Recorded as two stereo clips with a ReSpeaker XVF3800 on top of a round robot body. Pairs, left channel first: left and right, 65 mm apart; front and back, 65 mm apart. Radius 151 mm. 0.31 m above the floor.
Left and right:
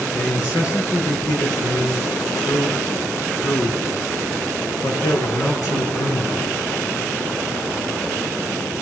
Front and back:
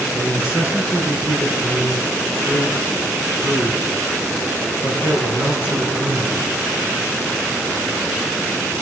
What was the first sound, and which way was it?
A man speaking, 115° left.